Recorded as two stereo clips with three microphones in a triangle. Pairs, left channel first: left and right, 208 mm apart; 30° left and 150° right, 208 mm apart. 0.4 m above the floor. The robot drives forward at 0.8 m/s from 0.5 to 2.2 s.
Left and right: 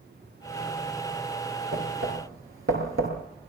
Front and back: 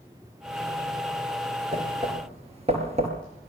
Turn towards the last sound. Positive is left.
turn(degrees=-90)